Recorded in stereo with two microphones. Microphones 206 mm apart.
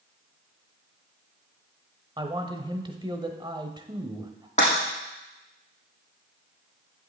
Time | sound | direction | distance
2.2 | a man speaking | 25° right (ahead or behind) | 1.0 m
4.6 | breaking glass | 35° left (ahead or behind) | 5.5 m